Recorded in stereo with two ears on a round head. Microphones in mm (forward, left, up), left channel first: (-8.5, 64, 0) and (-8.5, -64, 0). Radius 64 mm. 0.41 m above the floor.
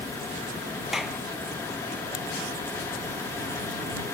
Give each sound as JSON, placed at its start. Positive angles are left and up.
{"t": 0.9, "sound": "a clap", "side_deg": 0}